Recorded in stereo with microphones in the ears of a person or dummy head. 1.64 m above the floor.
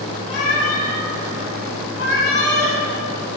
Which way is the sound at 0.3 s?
40° left (ahead or behind).